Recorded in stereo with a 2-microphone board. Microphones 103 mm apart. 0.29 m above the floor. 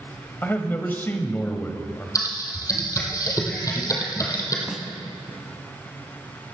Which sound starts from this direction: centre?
A snare drum, at 4.7 s.